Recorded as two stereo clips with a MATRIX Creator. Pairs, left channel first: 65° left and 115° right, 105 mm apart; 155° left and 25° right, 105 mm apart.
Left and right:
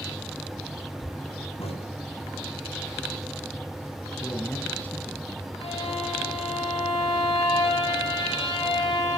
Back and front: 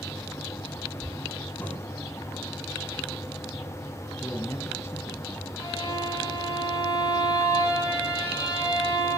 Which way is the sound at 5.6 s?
100° left.